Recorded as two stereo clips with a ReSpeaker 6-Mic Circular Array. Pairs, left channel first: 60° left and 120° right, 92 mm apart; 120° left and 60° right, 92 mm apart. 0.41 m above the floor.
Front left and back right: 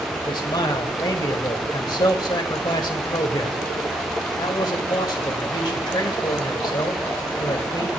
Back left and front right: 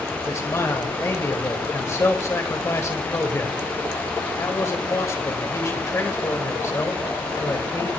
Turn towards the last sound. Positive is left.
turn(degrees=75)